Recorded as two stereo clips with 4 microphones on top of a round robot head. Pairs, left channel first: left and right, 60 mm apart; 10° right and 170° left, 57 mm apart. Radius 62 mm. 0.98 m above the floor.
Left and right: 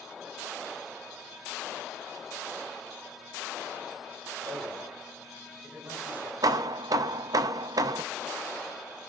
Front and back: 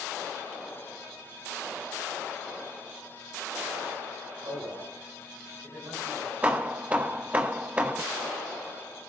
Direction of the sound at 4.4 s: 145° right.